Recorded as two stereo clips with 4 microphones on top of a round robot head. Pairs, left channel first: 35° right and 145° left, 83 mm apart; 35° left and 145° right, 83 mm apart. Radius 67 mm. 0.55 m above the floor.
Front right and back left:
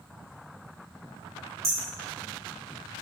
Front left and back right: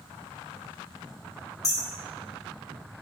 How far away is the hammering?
About 2.5 m.